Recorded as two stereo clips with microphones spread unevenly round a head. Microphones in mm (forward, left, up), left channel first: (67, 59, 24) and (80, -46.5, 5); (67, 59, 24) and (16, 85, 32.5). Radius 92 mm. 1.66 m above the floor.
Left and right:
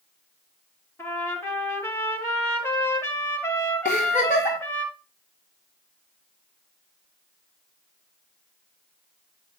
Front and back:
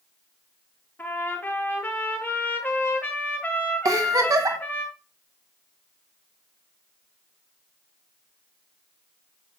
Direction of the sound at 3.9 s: 140° left.